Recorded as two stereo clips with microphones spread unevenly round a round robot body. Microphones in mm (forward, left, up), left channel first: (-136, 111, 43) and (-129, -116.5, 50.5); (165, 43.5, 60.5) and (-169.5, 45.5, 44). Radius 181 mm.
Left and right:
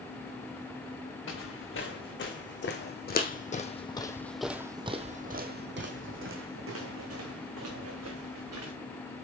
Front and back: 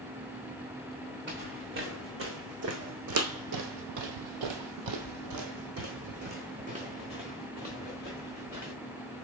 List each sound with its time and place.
1.3 s footsteps: 120° left, 2.5 m; by 8.7 s 95° right, 3 m